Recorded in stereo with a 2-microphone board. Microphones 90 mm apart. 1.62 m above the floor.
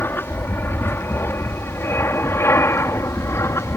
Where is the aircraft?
25° left (ahead or behind); by 3.8 s 30° left (ahead or behind).